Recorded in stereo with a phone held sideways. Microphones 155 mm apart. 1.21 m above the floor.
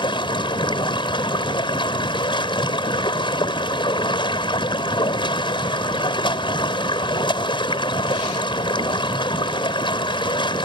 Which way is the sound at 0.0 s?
30° left (ahead or behind).